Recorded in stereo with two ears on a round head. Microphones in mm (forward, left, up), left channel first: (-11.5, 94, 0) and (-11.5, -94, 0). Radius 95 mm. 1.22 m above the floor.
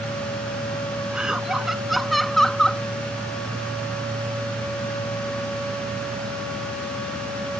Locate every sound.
1.1 s laughter: 5° right (ahead or behind); by 2.8 s 5° left (ahead or behind)